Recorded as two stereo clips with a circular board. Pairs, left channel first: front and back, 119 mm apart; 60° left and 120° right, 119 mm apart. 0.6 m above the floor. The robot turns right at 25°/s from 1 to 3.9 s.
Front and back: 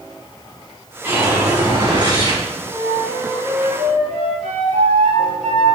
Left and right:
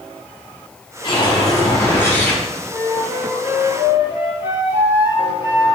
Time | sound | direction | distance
1.0 | a whoosh | 110° left | 4 m
2.7 | a flute | 145° left | 4 m